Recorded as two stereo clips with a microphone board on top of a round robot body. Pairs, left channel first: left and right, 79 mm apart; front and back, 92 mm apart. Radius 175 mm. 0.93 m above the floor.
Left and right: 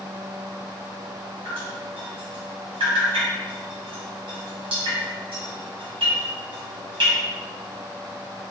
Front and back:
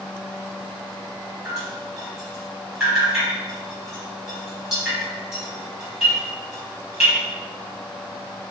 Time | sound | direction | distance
1.4 | dripping | 95° right | 0.9 m